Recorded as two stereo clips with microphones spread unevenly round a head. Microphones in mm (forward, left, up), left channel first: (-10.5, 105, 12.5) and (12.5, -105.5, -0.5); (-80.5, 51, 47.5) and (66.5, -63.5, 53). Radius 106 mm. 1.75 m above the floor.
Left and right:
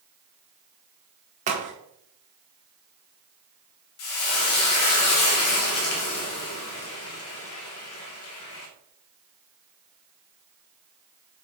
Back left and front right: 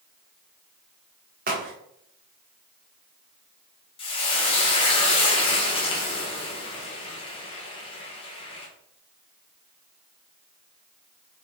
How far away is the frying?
About 1.7 m.